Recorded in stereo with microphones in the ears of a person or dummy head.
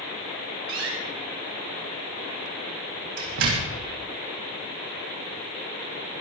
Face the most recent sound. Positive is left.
turn(degrees=-70)  # may be behind; listen again after turning